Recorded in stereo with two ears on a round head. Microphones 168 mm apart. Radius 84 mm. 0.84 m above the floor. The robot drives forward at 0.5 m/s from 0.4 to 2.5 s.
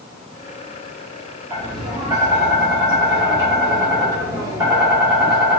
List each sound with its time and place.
1.5 s tapping: 25° right (ahead or behind), 1.8 m; by 5.6 s 20° right (ahead or behind), 2 m